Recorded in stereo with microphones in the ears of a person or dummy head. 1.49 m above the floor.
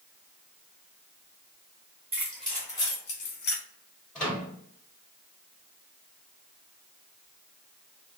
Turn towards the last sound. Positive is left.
turn(degrees=5)  # may be behind; listen again after turning